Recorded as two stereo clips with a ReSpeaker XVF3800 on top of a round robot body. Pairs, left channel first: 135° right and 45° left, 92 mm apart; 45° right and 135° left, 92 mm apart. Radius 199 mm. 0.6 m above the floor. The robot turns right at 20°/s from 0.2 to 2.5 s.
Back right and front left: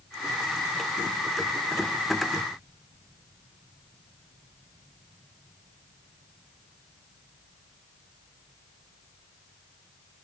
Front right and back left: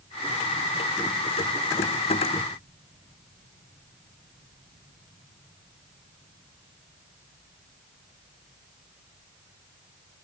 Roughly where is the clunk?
I don't hear a clunk.